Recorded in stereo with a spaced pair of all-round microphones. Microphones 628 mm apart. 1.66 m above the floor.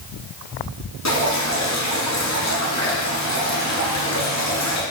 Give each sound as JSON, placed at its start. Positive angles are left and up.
{"t": 1.1, "sound": "dripping", "side_deg": 25, "distance_m": 1.0}